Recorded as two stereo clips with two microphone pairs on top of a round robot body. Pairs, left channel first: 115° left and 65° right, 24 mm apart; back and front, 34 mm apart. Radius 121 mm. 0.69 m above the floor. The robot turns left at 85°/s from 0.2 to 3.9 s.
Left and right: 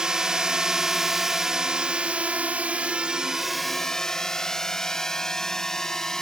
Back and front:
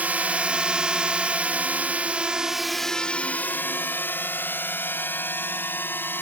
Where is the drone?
15° right; by 6.2 s straight behind.